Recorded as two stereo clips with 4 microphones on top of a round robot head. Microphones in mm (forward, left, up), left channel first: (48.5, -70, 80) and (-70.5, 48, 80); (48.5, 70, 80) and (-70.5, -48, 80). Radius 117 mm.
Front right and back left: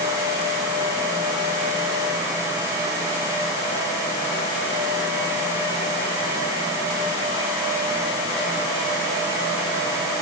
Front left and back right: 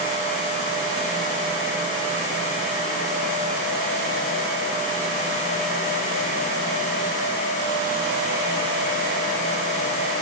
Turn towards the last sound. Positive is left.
No sound to turn to.